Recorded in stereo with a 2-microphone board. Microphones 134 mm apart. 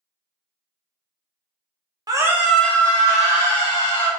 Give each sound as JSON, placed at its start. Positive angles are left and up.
{"t": 2.1, "sound": "a scream", "side_deg": -30, "distance_m": 0.6}